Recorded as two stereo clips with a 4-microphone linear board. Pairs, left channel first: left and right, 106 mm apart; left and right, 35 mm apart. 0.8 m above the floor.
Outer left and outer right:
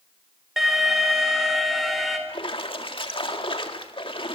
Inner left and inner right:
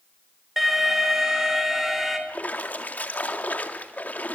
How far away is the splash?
About 1.9 m.